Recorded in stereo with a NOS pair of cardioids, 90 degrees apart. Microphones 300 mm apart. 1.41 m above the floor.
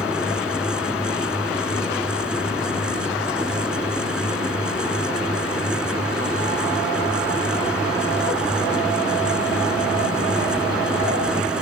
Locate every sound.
0.0 s a fan: 5° right